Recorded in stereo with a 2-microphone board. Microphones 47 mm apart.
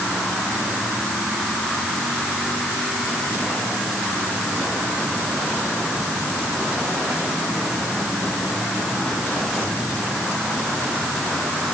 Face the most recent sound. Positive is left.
No sound to turn to.